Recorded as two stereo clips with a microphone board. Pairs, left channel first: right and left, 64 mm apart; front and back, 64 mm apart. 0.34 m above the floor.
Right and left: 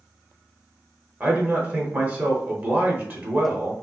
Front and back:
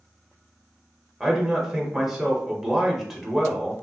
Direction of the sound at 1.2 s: 105° left.